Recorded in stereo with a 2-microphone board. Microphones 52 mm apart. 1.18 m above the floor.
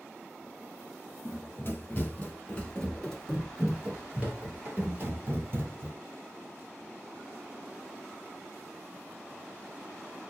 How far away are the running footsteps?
About 1.6 m.